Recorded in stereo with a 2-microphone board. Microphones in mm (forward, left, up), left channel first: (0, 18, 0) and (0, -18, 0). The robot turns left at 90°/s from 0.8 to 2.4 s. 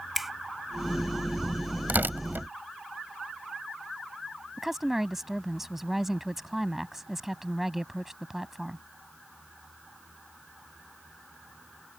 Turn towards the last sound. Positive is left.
turn(degrees=-5)  # may be behind; listen again after turning